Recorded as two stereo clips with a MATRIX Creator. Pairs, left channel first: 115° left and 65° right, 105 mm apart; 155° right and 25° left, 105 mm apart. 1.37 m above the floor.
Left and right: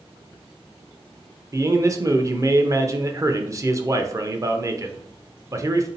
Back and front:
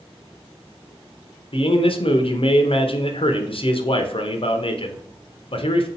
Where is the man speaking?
125° right, 0.6 m.